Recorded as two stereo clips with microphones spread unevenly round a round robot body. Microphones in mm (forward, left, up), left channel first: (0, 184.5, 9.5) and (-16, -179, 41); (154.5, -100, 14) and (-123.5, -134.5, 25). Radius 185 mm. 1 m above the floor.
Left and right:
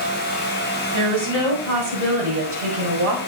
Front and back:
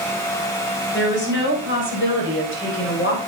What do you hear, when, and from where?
0.9 s a woman speaking: 45° right, 6 m; by 3.2 s 35° right, 4.5 m